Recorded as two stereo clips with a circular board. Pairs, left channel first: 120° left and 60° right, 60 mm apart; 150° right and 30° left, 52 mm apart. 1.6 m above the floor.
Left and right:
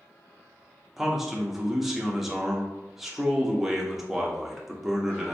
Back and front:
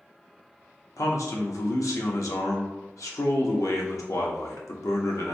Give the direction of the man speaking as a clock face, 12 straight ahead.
5 o'clock.